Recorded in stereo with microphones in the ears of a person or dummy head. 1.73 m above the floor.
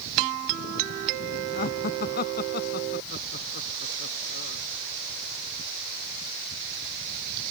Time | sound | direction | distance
1.6 | laughter | 50° left (ahead or behind) | ?